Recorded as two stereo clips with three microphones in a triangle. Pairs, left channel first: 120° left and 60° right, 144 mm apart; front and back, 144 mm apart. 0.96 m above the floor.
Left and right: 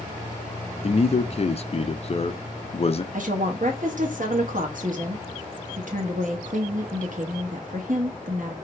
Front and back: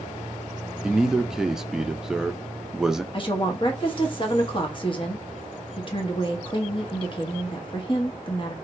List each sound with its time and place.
0.8 s a man speaking: 95° left, 0.5 m
3.1 s a woman speaking: 50° right, 1.3 m